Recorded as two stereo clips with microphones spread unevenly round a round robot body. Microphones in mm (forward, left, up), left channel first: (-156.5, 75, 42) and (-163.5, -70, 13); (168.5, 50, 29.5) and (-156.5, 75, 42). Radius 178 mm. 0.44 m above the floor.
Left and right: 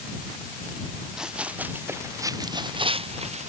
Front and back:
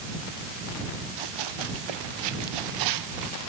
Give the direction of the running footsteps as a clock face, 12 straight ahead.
6 o'clock.